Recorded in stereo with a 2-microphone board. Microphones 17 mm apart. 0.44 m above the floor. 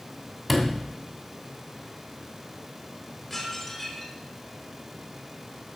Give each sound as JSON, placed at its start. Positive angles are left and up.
{"t": 0.5, "sound": "a sliding door", "side_deg": 5, "distance_m": 2.5}
{"t": 3.3, "sound": "dishes clattering", "side_deg": 20, "distance_m": 3.5}